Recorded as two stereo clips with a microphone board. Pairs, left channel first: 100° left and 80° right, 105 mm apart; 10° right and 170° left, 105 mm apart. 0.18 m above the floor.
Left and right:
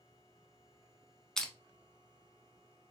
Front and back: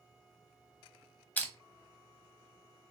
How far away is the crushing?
About 0.9 m.